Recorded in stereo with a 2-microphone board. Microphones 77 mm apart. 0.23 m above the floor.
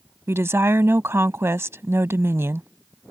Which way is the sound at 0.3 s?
35° right (ahead or behind).